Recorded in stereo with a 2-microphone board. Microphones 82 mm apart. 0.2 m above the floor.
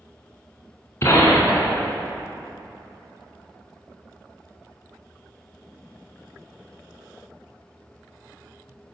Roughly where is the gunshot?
Left.